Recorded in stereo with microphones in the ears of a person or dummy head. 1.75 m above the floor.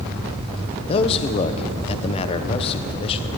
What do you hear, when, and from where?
0.9 s a man speaking: 35° left (ahead or behind), 1.2 m